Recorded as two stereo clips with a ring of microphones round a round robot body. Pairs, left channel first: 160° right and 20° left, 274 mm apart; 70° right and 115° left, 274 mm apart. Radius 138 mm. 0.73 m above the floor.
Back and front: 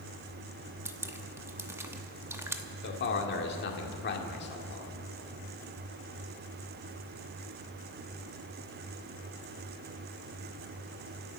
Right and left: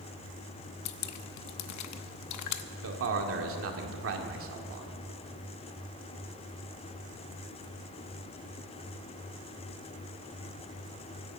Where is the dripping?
55° right, 0.9 m.